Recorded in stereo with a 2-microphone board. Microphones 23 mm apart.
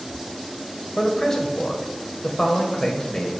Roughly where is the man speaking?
Left.